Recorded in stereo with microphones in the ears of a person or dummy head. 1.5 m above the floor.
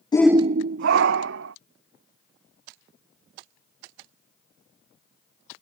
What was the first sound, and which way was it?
A shout, 20° left (ahead or behind).